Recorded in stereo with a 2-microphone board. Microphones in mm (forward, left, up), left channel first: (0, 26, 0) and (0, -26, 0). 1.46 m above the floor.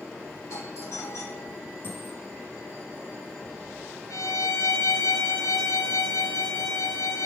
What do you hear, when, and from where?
0.5 s a doorbell: 70° left (ahead or behind), 3 m
1.8 s a dropped coin: 40° left (ahead or behind), 7 m
4.1 s a violin: 85° left, 2 m